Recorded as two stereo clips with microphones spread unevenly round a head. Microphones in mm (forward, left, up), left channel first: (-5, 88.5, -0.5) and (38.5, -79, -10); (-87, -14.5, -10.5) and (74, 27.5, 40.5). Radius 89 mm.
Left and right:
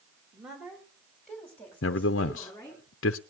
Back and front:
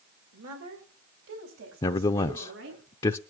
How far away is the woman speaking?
About 3 m.